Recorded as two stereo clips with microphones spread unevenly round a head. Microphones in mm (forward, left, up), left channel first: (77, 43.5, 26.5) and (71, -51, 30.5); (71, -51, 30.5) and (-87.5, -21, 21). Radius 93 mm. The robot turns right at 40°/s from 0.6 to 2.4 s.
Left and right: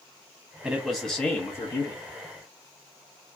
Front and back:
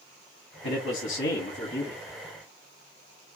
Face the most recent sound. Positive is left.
turn(degrees=65)